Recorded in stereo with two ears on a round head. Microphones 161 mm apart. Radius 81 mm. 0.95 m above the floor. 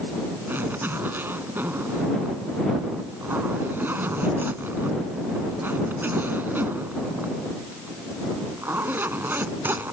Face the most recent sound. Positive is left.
turn(degrees=-10)  # may be behind; listen again after turning